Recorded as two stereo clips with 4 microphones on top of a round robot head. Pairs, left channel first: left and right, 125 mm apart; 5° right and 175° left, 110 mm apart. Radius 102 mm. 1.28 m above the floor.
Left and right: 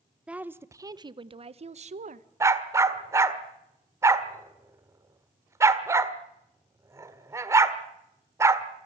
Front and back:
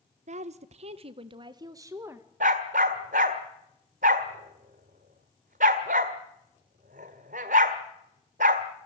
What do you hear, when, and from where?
0.3 s a woman speaking: 170° right, 1.3 m; by 2.3 s 110° right, 1.6 m
2.4 s a dog barking: 155° right, 1.5 m